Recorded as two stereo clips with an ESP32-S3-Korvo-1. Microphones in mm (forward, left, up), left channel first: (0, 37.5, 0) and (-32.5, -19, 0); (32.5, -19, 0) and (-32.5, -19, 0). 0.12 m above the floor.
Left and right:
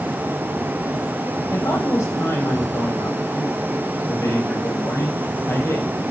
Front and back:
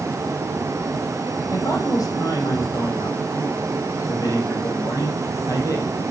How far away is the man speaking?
About 5.5 m.